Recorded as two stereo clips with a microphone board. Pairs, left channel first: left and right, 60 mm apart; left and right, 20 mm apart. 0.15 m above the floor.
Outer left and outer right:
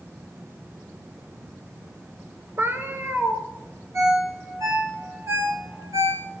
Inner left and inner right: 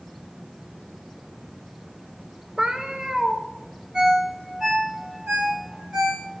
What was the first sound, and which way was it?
A cat meowing, 40° right (ahead or behind).